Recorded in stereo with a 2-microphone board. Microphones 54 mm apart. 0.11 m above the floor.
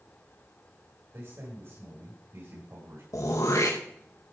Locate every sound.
1.1 s a man speaking: 60° right (ahead or behind), 8.5 m
3.1 s throat clearing: 75° left (ahead or behind), 3.5 m